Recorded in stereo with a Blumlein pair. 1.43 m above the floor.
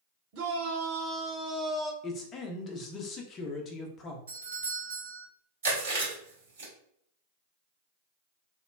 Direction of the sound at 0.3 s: 45° right.